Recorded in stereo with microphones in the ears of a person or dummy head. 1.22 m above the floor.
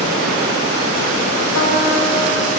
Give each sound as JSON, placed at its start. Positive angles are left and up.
{"t": 1.6, "sound": "a piano", "side_deg": 80, "distance_m": 5.5}